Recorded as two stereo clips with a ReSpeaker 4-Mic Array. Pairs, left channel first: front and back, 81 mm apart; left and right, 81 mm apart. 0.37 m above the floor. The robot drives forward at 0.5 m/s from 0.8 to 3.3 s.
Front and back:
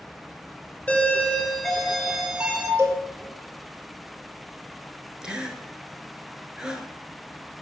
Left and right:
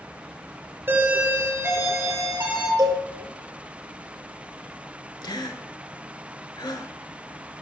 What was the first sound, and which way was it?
A doorbell, 60° right.